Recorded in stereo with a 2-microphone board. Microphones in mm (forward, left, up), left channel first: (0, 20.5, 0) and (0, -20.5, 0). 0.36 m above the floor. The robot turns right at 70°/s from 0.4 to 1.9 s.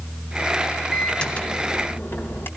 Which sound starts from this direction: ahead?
A microwave, at 0.9 s.